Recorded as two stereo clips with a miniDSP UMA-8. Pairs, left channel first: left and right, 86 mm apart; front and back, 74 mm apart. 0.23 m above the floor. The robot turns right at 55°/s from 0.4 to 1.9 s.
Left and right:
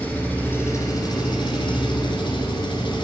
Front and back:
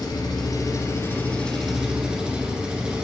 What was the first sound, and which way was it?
An engine running, 20° left.